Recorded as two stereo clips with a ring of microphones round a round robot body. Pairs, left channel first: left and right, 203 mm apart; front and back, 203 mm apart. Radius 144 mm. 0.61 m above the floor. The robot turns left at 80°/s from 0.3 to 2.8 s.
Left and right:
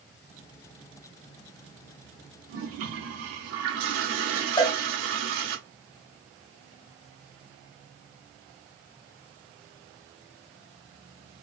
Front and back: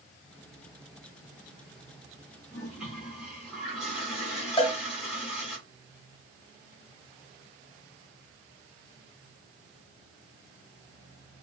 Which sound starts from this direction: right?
A toilet flushing, at 2.5 s.